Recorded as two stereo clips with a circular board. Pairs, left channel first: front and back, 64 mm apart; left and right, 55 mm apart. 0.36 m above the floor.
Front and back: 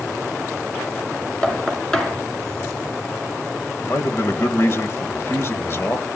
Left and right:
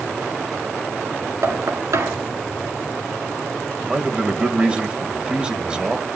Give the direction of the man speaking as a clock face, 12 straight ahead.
1 o'clock.